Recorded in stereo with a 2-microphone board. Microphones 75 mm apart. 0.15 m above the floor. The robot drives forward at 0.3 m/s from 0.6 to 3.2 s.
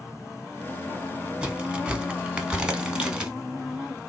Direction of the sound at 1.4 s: 10° right (ahead or behind).